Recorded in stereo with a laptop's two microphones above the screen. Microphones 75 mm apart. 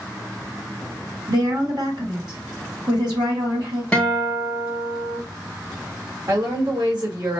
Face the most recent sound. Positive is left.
turn(degrees=-65)  # may be behind; listen again after turning